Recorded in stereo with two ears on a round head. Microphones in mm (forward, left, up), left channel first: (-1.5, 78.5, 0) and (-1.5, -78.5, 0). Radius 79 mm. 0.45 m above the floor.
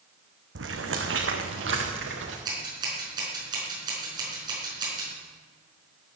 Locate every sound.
0.6 s footsteps: 80° right, 1.9 m; by 2.4 s 75° right (ahead or behind), 4 m
2.5 s scissors: 25° right (ahead or behind), 5 m